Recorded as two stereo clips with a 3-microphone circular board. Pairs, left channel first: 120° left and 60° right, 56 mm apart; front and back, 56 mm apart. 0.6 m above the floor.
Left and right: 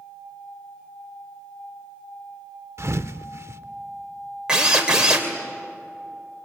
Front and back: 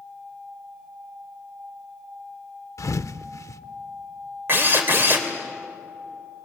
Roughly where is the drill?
Behind right.